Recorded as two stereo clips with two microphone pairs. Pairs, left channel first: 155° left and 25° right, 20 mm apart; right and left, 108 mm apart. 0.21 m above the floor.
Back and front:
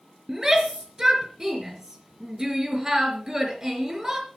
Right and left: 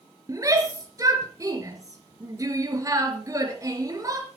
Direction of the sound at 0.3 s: 35° left.